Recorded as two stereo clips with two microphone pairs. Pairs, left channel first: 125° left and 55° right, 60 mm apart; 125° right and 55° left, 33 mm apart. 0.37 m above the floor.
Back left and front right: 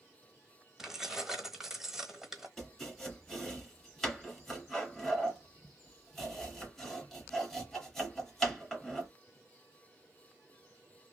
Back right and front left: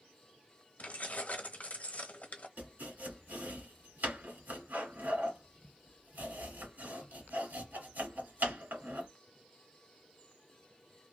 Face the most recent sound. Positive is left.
turn(degrees=45)